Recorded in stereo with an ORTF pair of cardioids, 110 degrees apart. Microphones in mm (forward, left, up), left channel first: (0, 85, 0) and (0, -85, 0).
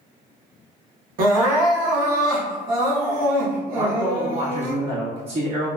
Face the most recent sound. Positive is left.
turn(degrees=-35)